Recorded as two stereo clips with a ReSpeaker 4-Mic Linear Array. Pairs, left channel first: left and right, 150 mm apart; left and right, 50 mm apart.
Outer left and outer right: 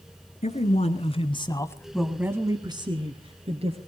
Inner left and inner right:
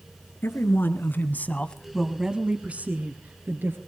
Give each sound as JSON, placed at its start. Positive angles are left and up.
{"t": 0.4, "sound": "a man speaking", "side_deg": 50, "distance_m": 2.5}